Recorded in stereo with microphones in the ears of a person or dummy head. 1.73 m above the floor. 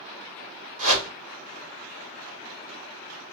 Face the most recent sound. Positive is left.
turn(degrees=-75)  # may be behind; listen again after turning